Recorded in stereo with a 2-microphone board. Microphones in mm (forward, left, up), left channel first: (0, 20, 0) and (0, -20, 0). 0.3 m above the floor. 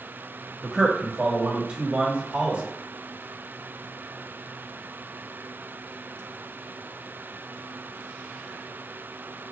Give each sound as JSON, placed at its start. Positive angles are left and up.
{"t": 0.6, "sound": "a man speaking", "side_deg": -15, "distance_m": 1.0}